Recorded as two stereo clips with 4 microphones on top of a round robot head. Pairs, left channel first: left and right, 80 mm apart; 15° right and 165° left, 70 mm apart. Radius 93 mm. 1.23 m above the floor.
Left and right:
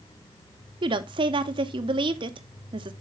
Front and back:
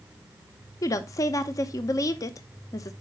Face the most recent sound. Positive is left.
turn(degrees=-60)